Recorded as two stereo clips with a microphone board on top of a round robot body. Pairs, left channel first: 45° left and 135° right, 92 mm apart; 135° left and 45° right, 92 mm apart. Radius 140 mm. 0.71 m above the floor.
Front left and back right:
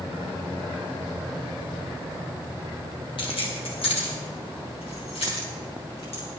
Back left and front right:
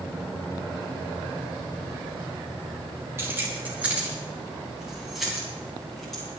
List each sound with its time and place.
3.2 s keys jangling: 20° left, 2.5 m; by 6.2 s 50° left, 6 m